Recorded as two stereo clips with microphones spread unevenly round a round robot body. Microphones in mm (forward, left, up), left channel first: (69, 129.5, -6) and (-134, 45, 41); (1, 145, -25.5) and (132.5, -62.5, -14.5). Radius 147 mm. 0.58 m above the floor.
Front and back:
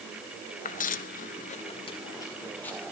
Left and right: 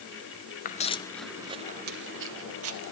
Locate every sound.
0.7 s footsteps: 80° left, 0.7 m; by 2.9 s 70° right, 1.2 m